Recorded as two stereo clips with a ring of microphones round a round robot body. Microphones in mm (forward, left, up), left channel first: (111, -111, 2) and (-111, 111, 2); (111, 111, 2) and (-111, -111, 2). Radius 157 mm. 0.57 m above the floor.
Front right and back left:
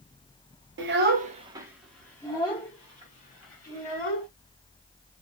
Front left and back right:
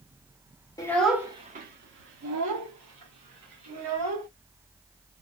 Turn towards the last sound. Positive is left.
turn(degrees=-105)